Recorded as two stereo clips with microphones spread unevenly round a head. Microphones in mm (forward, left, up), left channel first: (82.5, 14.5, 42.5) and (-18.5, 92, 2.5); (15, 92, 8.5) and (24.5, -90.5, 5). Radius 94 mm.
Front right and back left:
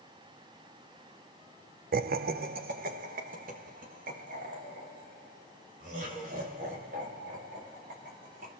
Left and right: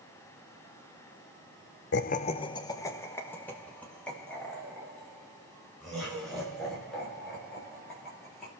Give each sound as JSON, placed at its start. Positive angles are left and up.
{"t": 1.9, "sound": "laughter", "azimuth_deg": 130, "distance_m": 0.6}